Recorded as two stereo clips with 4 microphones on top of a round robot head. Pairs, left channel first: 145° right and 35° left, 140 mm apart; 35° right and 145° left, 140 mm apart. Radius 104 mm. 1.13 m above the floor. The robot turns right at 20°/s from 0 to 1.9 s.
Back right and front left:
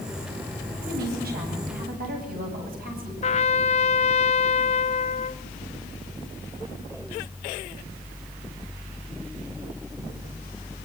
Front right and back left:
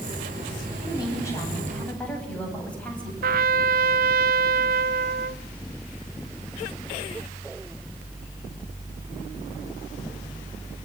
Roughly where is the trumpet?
Behind.